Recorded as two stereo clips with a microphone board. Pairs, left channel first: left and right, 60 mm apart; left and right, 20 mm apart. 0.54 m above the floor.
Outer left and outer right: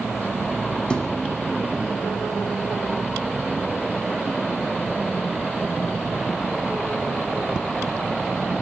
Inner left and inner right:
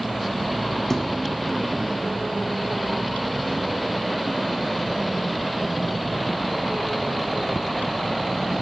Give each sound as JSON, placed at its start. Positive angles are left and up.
{"t": 0.9, "sound": "a thud", "side_deg": 15, "distance_m": 3.0}